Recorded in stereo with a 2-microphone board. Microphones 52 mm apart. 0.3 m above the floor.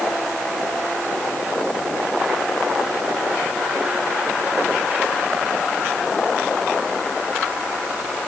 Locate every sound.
Only background noise.